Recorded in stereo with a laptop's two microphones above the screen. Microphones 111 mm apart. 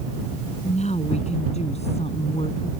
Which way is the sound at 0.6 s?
85° left.